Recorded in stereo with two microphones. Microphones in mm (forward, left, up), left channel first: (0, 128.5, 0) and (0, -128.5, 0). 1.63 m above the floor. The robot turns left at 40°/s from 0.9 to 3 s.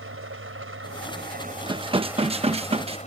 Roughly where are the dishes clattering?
Centre.